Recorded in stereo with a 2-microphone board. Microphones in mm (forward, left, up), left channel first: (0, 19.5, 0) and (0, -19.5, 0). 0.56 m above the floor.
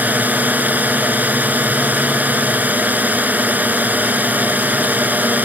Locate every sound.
0.0 s a drone: 50° right (ahead or behind)